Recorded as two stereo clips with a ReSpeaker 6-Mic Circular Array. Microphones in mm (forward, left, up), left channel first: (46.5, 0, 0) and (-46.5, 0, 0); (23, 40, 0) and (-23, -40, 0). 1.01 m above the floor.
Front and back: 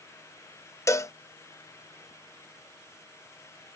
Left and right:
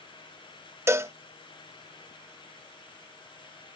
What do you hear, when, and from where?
0.9 s a cowbell: 55° right